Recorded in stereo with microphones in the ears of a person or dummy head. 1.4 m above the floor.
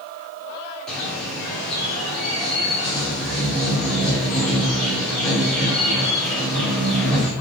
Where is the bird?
5° left (ahead or behind), 4 m.